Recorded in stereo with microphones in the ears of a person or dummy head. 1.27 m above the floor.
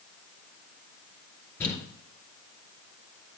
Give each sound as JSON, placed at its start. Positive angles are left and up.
{"t": 1.6, "sound": "crumpling", "side_deg": 15, "distance_m": 2.0}